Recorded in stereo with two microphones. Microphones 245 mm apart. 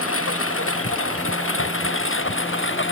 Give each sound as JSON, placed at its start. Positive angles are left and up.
{"t": 0.0, "sound": "a lawn mower", "side_deg": 65}